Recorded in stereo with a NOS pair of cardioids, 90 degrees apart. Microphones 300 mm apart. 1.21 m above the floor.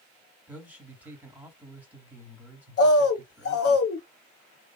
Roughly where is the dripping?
No dripping in this recording.